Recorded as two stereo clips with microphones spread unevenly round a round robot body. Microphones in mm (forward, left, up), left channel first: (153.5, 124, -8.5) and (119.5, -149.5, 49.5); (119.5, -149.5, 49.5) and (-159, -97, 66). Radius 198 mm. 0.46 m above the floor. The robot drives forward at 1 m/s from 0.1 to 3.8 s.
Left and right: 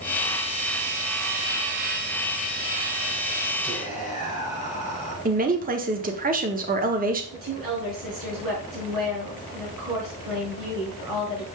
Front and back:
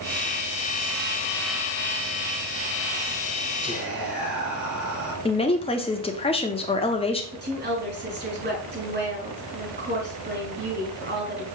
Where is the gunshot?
No gunshot in this recording.